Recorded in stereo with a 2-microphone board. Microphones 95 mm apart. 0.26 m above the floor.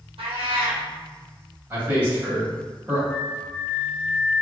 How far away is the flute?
About 0.7 m.